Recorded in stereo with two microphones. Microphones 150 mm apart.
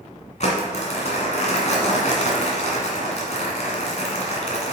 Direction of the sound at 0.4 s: 55° left (ahead or behind).